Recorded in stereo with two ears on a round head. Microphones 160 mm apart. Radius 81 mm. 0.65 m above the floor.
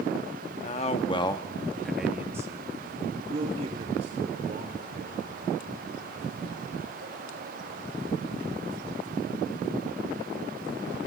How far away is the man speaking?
About 1.3 m.